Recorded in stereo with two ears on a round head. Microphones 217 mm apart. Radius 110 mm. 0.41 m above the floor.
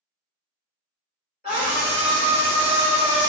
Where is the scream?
35° left (ahead or behind), 1.3 m; by 3.3 s 30° left (ahead or behind), 1.4 m.